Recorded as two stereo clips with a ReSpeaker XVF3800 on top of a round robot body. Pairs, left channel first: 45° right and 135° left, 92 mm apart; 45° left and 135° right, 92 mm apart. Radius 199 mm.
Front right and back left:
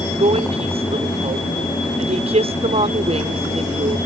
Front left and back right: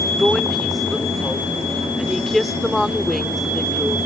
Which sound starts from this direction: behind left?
A woman speaking, at 0.2 s.